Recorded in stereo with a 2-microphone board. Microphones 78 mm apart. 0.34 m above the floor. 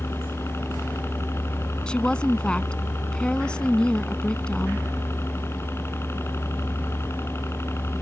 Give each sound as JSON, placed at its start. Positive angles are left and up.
{"t": 0.0, "sound": "a helicopter", "side_deg": 35}
{"t": 1.9, "sound": "a woman speaking", "side_deg": 10}